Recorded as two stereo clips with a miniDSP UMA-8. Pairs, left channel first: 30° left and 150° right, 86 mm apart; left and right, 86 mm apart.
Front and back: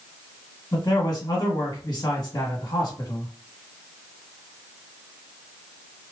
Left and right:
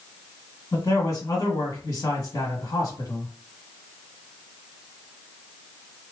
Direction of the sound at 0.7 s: 55° left.